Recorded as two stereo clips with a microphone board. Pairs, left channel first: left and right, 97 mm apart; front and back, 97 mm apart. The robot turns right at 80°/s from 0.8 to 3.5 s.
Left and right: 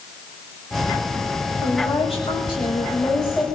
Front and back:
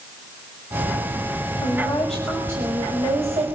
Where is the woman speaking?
45° left, 6 m; by 3.6 s 165° right, 6 m.